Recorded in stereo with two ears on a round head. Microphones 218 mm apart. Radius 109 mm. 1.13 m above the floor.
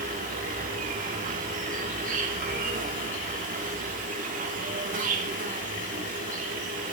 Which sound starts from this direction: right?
An insect, at 0.0 s.